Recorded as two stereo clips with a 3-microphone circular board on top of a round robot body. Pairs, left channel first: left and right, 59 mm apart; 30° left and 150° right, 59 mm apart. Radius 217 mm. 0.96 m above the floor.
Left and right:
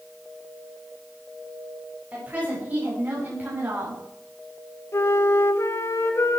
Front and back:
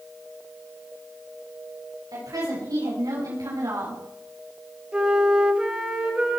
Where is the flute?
135° left, 1.9 m.